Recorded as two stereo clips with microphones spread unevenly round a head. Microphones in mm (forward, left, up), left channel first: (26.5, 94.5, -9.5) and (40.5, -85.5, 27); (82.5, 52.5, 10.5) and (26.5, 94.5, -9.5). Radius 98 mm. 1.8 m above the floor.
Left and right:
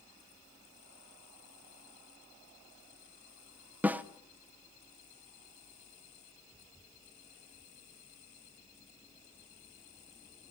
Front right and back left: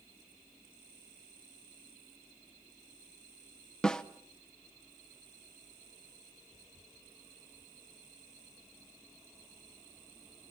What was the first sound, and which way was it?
A snare drum, 45° right.